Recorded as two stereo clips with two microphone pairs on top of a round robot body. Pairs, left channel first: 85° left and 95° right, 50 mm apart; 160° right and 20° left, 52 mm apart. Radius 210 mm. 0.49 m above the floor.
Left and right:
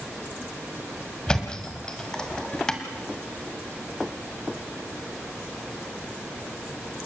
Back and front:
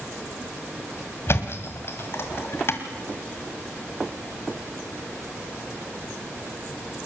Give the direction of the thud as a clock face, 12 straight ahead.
7 o'clock.